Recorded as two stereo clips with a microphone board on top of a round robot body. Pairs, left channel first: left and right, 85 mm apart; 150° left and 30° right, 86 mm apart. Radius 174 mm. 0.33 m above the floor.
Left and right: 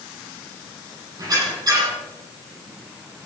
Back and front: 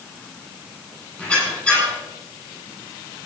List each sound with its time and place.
1.2 s a squeak: 140° right, 8.5 m